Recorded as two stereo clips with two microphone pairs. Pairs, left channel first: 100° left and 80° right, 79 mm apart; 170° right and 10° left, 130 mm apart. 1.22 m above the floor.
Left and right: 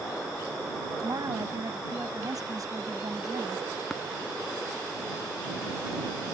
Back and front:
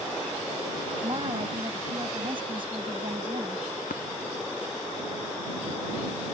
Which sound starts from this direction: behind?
Tapping, at 3.9 s.